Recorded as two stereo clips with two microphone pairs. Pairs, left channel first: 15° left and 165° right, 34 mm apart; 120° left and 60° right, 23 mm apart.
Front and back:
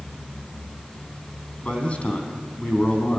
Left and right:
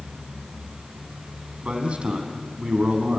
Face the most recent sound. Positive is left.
turn(degrees=-35)